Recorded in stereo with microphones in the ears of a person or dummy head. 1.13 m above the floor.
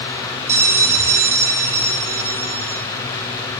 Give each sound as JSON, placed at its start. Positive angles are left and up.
{"t": 0.5, "sound": "a bell", "side_deg": -15, "distance_m": 0.7}